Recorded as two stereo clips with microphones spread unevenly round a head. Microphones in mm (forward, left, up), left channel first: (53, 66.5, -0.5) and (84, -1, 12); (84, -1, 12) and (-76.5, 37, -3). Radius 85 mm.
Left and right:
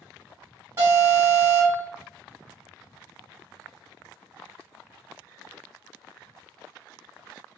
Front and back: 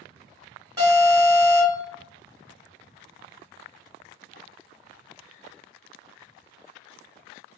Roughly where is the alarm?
Behind right.